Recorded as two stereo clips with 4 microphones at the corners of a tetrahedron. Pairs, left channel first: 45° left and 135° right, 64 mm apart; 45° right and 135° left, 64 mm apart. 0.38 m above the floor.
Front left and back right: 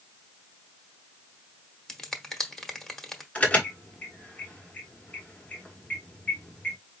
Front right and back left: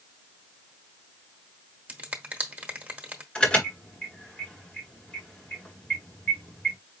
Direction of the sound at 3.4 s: 5° left.